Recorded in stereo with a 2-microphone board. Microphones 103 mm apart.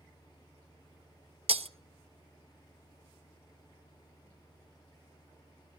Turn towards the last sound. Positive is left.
turn(degrees=-70)  # may be behind; listen again after turning